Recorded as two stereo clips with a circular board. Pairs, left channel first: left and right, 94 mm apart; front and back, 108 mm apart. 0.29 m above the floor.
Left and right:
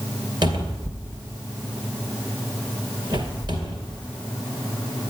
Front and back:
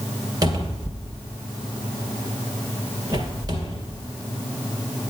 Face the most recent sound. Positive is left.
turn(degrees=-130)